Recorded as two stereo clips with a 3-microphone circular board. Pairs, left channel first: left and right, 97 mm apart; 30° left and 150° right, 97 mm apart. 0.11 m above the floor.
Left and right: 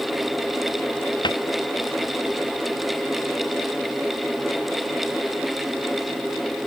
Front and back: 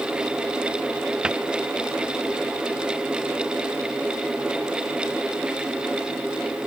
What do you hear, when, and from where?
1.2 s a cupboard door: 130° left